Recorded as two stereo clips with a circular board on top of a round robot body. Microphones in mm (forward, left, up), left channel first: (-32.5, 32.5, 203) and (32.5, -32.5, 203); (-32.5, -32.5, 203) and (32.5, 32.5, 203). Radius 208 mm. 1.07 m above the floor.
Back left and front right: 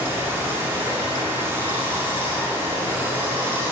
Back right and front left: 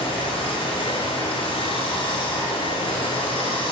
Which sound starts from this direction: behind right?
Running water, at 0.0 s.